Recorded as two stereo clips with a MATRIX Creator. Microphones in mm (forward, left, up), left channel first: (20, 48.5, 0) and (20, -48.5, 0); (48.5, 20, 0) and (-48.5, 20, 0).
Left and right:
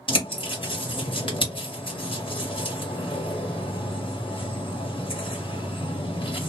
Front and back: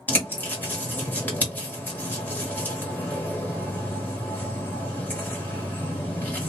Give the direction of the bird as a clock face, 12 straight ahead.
10 o'clock.